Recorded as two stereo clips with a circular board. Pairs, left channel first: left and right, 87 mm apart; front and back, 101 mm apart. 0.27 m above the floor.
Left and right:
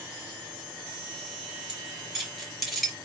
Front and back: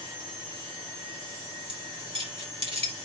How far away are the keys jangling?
About 3 m.